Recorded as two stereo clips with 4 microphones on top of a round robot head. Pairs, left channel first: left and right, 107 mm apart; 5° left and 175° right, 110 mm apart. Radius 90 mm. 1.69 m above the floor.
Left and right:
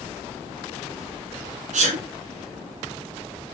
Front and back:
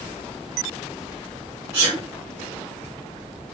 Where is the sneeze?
100° right, 1.6 m.